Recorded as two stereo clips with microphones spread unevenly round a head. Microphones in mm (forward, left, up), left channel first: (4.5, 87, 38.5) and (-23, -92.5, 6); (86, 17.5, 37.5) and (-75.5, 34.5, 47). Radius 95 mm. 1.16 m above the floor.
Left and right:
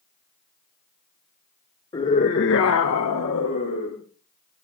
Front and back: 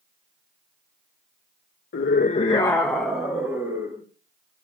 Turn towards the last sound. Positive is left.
turn(degrees=100)